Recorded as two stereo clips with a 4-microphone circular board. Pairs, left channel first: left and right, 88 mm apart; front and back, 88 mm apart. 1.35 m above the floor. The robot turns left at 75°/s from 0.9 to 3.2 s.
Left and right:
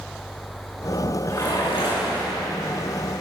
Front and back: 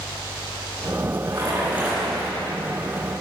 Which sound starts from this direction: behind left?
A splash, at 1.3 s.